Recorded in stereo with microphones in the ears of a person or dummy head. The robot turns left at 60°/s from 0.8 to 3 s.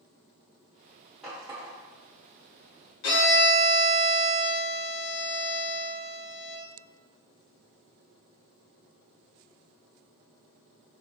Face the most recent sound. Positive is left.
turn(degrees=60)  # may be behind; listen again after turning